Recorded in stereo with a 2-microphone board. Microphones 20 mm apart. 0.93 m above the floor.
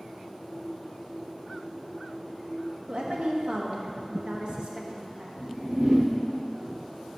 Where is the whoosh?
65° right (ahead or behind), 1.5 m.